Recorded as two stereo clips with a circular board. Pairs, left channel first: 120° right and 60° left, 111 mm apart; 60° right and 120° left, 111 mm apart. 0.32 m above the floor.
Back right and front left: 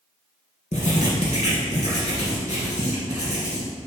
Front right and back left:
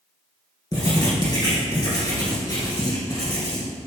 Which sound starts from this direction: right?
Writing, at 0.7 s.